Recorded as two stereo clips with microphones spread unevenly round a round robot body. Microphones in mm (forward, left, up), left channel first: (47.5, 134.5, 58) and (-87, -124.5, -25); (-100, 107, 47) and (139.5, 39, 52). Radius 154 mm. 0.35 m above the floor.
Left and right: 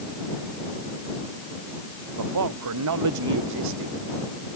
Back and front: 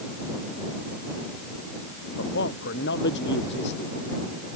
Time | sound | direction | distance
2.2 | a man speaking | 140° right | ?